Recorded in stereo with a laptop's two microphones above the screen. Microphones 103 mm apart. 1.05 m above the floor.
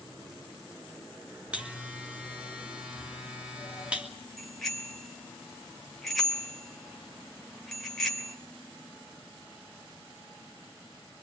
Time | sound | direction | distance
1.5 | a buzzer | 10° right (ahead or behind) | 2.5 m
4.4 | a bicycle bell | centre (ahead or behind) | 3 m